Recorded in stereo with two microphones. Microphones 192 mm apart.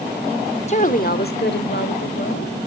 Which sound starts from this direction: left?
A woman speaking, at 0.7 s.